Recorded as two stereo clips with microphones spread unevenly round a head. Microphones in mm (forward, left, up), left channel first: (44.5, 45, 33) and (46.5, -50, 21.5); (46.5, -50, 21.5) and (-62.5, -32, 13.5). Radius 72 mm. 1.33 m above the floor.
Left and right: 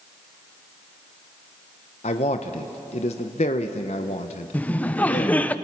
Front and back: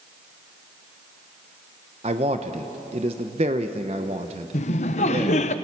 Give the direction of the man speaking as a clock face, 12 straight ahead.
8 o'clock.